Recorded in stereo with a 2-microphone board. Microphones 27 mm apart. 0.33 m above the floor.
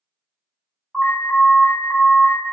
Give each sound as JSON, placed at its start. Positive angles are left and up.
{"t": 0.9, "sound": "an alarm", "side_deg": -30, "distance_m": 1.8}